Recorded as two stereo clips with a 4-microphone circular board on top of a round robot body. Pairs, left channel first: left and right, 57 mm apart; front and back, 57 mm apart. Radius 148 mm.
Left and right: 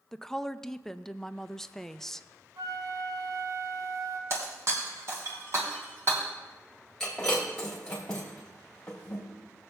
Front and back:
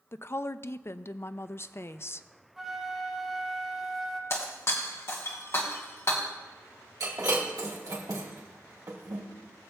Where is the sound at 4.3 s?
45° right, 1.4 m.